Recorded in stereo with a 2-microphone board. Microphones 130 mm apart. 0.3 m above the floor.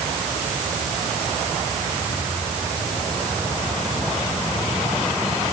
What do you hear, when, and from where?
Only background noise.